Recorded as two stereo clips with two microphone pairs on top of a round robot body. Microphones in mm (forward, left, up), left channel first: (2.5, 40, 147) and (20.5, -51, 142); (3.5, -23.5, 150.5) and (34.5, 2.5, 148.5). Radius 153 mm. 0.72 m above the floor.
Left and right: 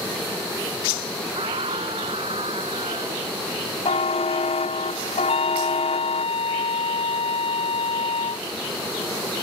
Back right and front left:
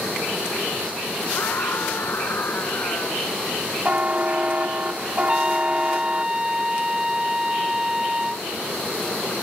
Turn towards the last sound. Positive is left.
turn(degrees=115)